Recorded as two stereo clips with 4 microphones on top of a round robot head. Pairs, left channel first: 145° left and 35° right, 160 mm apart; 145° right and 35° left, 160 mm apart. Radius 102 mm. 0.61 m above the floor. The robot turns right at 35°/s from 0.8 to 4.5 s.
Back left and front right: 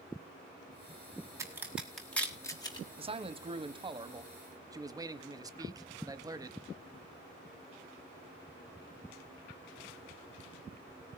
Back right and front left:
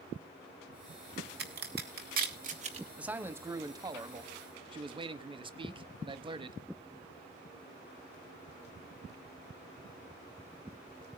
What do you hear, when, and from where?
1.4 s a crack: 35° left, 2.5 m; by 2.9 s 85° left, 2.5 m
3.0 s a man speaking: 40° right, 1.1 m; by 6.6 s 15° left, 1.1 m